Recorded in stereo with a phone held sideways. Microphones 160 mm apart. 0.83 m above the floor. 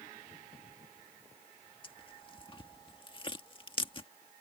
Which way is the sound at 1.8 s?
30° left (ahead or behind).